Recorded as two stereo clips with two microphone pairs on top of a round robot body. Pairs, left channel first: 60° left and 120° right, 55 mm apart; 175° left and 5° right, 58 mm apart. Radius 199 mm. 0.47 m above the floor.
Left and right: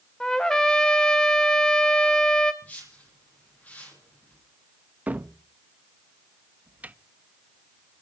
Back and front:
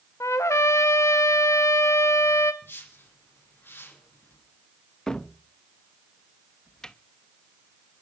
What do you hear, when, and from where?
0.2 s a trumpet: 135° left, 0.5 m
2.6 s a whoosh: 120° left, 9.5 m
5.1 s a cupboard door: 120° right, 1.3 m